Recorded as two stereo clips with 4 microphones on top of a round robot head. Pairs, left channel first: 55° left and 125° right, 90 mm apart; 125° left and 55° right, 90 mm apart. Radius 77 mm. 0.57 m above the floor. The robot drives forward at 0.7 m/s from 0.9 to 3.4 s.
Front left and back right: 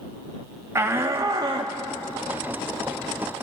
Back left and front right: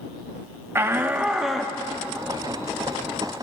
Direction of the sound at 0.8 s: 95° right.